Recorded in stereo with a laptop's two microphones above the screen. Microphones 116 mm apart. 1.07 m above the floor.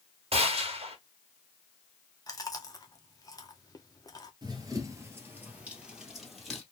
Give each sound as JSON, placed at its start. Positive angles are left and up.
{"t": 0.3, "sound": "a gunshot", "side_deg": -55, "distance_m": 1.4}
{"t": 2.3, "sound": "chewing", "side_deg": 30, "distance_m": 0.9}
{"t": 4.4, "sound": "running footsteps", "side_deg": -35, "distance_m": 1.4}